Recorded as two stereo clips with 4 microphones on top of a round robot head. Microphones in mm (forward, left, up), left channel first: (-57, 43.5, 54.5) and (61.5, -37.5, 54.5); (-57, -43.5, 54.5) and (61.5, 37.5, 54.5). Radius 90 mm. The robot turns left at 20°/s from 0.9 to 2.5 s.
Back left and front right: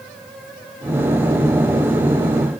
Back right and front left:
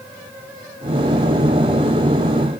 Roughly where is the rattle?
No rattle in this recording.